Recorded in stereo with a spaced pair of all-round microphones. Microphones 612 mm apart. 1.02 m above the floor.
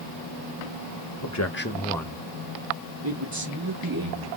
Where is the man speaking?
35° left (ahead or behind), 0.8 m; by 4.3 s 35° right (ahead or behind), 1.8 m.